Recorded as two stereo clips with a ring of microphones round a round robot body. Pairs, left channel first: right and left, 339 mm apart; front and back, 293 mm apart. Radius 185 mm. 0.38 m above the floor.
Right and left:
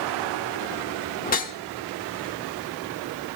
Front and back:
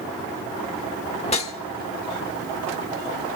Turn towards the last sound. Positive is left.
turn(degrees=-50)